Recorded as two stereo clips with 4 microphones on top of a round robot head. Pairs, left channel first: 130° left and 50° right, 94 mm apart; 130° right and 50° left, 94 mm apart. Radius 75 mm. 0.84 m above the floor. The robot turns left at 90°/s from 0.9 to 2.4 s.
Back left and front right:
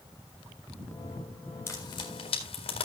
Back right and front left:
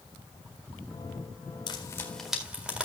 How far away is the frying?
About 3.5 m.